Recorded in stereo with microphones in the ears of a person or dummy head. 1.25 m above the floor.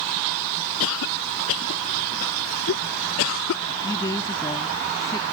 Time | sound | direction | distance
0.8 | a cough | 70° left (ahead or behind) | ?
3.7 | a woman speaking | 20° left (ahead or behind) | ?